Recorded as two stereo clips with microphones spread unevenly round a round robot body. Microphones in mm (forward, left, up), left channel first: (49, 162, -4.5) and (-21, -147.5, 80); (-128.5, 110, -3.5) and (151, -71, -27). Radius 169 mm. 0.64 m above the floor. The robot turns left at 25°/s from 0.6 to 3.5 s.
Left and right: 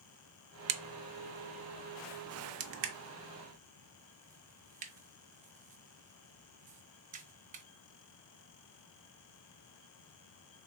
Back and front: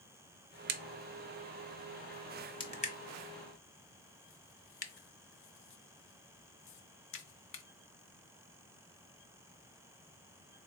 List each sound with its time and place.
0.7 s a crack: 90° right, 0.5 m; by 7.6 s 160° right, 0.5 m